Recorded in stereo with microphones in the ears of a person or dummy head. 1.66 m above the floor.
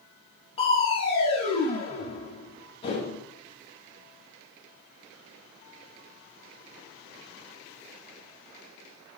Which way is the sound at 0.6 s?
30° left (ahead or behind).